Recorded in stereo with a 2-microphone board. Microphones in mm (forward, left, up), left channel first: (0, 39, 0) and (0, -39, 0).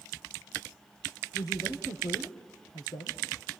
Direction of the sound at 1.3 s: 60° left (ahead or behind).